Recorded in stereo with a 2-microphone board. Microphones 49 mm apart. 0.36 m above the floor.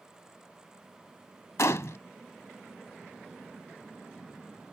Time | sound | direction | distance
1.6 | a gunshot | 75° left (ahead or behind) | ?